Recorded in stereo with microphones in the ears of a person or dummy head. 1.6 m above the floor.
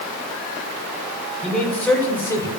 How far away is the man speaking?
About 6 m.